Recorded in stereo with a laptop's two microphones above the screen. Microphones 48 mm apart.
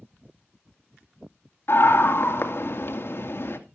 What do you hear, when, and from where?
1.7 s a scream: 55° left (ahead or behind), 2.5 m